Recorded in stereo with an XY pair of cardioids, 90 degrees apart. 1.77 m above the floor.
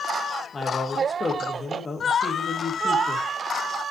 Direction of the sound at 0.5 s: 35° left.